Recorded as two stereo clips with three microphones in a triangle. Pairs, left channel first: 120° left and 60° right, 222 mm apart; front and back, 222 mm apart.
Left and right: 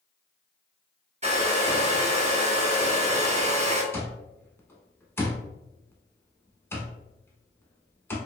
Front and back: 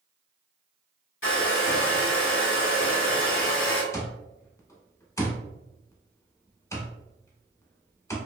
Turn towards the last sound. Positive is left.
turn(degrees=60)